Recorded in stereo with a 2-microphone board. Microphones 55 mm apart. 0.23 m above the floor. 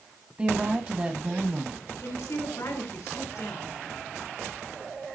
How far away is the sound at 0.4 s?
About 1.6 m.